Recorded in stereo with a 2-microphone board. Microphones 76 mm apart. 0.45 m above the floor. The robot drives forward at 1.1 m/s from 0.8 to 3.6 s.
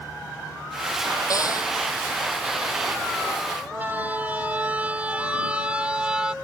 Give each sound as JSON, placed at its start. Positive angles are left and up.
{"t": 1.3, "sound": "a cupboard door", "side_deg": 45}
{"t": 3.7, "sound": "a siren", "side_deg": -20}